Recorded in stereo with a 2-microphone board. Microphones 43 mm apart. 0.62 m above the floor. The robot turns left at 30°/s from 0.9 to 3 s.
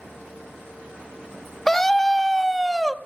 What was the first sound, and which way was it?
A scream, 10° left (ahead or behind).